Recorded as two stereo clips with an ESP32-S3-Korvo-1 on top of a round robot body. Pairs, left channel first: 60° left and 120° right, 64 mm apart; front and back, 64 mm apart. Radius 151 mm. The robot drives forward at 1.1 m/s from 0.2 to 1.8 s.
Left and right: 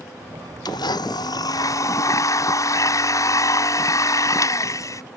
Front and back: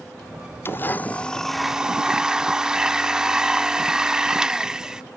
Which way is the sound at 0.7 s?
55° left.